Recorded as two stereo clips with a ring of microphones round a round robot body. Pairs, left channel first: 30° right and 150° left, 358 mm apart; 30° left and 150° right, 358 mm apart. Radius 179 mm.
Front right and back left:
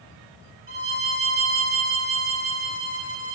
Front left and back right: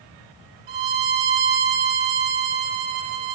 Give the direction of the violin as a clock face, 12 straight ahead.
5 o'clock.